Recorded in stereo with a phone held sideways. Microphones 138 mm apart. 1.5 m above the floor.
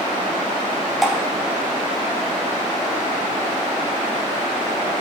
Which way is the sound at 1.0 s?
Centre (ahead or behind).